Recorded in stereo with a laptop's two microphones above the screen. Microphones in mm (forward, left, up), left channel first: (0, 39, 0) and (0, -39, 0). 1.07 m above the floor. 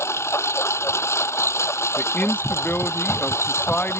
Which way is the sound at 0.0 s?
35° left (ahead or behind).